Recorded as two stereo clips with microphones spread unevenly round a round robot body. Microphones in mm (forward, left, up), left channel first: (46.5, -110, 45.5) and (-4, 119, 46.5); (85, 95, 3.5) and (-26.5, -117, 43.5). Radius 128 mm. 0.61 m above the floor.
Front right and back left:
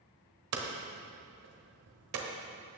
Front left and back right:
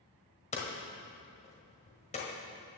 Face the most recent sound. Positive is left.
turn(degrees=125)